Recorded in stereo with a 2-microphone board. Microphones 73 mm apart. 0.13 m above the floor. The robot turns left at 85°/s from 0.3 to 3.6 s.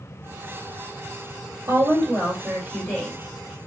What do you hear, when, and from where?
1.7 s a woman speaking: 95° right, 2.5 m; by 3.2 s 135° left, 2.5 m